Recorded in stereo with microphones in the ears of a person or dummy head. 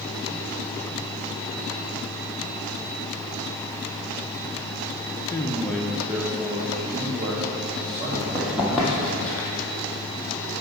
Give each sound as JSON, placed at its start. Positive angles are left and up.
{"t": 5.3, "sound": "a man speaking", "side_deg": 20, "distance_m": 0.5}
{"t": 8.1, "sound": "running footsteps", "side_deg": -15, "distance_m": 2.0}